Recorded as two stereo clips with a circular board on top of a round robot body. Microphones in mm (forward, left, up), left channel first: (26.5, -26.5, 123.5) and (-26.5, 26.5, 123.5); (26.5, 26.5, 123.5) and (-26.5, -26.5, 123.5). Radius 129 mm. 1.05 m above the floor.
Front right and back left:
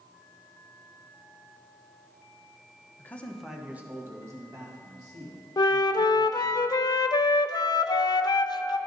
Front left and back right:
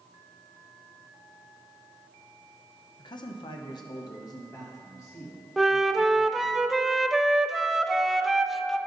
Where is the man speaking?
15° left, 0.8 m; by 6.6 s 105° left, 3 m.